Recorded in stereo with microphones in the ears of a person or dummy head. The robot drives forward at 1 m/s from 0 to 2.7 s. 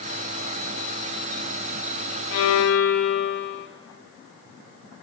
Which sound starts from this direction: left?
A violin, at 2.3 s.